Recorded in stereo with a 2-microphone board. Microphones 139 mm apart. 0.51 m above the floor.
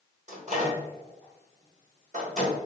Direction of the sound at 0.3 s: 55° right (ahead or behind).